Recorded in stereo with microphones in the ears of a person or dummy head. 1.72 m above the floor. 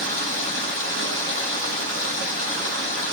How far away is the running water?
About 1.8 m.